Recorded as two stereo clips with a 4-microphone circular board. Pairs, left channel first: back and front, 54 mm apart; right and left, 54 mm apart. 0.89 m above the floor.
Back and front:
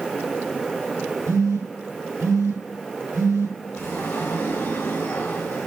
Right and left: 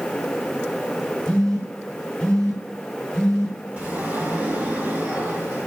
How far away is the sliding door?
About 2.0 m.